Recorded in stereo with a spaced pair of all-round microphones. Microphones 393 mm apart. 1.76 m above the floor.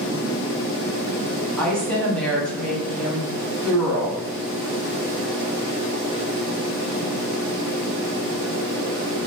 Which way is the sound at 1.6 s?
Centre (ahead or behind).